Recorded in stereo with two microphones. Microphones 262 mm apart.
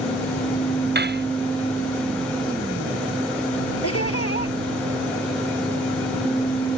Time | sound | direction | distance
0.9 | cutlery clinking | 45° right (ahead or behind) | ?
3.8 | laughter | 70° left (ahead or behind) | ?